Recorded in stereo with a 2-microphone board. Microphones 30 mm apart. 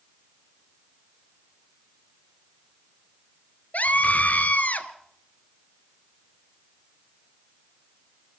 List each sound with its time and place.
3.7 s a scream: 55° left (ahead or behind), 1.9 m